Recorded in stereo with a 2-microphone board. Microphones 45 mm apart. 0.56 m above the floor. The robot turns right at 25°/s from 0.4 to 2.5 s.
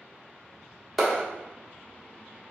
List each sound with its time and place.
1.0 s a clap: centre (ahead or behind), 1.3 m; by 1.2 s 5° right (ahead or behind), 1.3 m